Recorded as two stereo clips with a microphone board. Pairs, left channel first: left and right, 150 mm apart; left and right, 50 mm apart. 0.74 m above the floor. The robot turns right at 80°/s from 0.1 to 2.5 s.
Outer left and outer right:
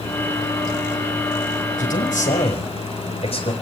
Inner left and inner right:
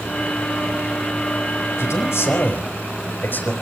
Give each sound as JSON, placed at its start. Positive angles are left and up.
{"t": 1.8, "sound": "a man speaking", "azimuth_deg": 75, "distance_m": 5.0}